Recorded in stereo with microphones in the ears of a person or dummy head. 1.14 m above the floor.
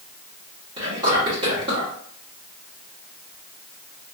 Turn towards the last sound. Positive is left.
turn(degrees=-25)  # may be behind; listen again after turning